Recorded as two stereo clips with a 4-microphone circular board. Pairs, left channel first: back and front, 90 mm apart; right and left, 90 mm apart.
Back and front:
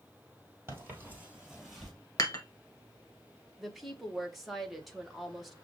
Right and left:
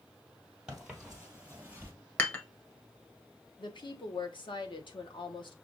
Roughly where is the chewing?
No chewing in this recording.